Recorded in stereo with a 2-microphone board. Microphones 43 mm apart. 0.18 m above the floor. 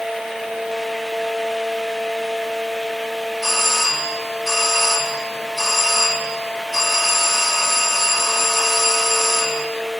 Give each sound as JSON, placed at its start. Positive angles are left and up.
{"t": 3.4, "sound": "a doorbell", "side_deg": 0, "distance_m": 9.5}